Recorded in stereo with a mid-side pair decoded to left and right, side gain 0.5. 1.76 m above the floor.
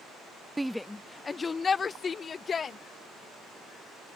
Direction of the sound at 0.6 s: 10° right.